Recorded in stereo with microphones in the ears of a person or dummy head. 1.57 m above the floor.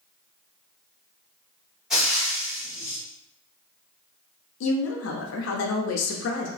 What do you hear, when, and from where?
1.9 s frying: 5° right (ahead or behind), 1.4 m
4.6 s a woman speaking: 75° left (ahead or behind), 0.5 m